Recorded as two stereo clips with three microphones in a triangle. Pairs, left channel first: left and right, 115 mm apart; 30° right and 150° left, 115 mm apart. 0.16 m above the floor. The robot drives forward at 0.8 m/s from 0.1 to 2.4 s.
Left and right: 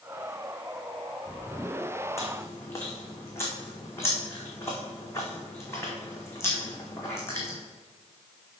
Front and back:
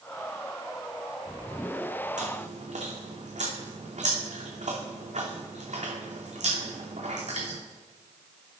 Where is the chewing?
155° left, 2.5 m; by 7.6 s 160° left, 2.5 m.